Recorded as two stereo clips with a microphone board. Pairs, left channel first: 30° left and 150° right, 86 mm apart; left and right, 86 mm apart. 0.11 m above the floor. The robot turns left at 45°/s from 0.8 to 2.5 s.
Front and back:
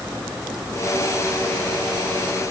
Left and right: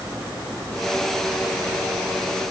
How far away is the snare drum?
No snare drum in this recording.